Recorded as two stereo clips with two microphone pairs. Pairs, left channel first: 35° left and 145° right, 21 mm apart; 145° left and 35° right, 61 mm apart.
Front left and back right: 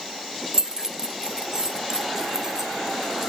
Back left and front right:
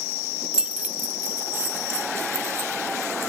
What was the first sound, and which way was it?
Keys jangling, 110° right.